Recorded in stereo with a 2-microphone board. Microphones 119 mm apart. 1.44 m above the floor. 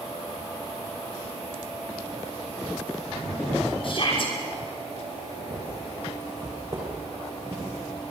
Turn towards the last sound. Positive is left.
turn(degrees=-15)  # may be behind; listen again after turning